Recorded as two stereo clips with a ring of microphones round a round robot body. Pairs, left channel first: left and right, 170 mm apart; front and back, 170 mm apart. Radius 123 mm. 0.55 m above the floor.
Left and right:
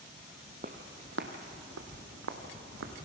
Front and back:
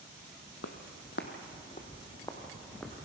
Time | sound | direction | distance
0.6 | footsteps | 30° right | 1.2 m